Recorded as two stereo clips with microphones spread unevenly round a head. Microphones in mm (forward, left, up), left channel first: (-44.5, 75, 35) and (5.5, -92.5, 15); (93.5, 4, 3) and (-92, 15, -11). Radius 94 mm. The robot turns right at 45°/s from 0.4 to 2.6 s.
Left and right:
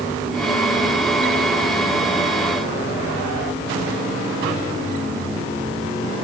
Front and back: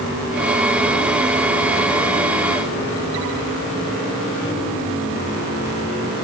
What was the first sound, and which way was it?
Only background noise.